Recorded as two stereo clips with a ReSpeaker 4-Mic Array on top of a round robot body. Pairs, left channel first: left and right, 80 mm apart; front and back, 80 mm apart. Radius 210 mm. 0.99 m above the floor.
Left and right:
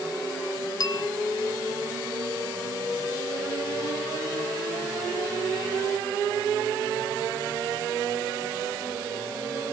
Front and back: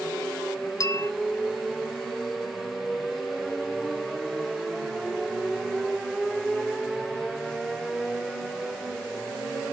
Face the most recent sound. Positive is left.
turn(degrees=45)